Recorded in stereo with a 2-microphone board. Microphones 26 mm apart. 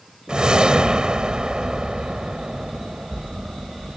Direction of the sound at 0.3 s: 40° right (ahead or behind).